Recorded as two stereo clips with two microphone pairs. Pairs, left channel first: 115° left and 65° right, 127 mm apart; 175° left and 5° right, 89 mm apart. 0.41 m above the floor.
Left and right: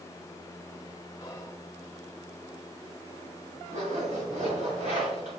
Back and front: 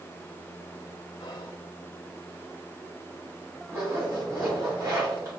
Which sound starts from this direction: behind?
Whispering, at 1.2 s.